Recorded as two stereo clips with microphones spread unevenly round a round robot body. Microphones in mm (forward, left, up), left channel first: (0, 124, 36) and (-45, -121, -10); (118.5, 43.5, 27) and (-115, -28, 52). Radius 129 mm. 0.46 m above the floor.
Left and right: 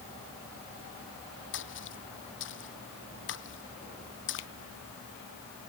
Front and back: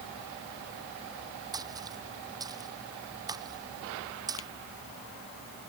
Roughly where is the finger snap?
Ahead left.